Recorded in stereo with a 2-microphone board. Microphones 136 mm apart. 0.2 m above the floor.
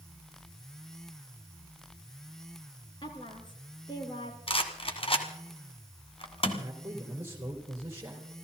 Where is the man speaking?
20° right (ahead or behind), 3.5 m.